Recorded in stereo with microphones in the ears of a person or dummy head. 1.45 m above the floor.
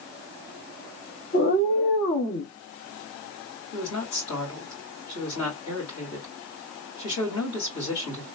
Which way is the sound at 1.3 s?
45° left (ahead or behind).